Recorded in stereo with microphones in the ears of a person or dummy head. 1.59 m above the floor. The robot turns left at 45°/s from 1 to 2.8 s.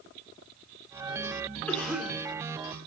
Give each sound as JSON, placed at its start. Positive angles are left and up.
{"t": 1.7, "sound": "a cough", "side_deg": 10, "distance_m": 4.0}